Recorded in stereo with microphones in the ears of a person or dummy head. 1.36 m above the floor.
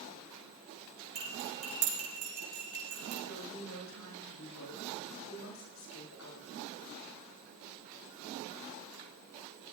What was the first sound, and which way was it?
Cutlery clinking, 55° right (ahead or behind).